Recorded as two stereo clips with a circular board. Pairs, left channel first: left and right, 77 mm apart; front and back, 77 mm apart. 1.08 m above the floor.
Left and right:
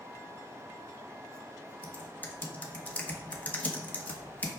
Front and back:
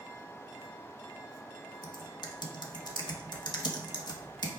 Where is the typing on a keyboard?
20° left, 1.3 m.